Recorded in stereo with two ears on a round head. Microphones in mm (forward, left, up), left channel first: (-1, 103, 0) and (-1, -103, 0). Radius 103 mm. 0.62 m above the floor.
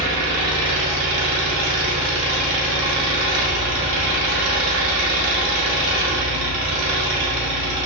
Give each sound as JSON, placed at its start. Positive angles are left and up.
{"t": 0.0, "sound": "an engine running", "side_deg": -80, "distance_m": 0.9}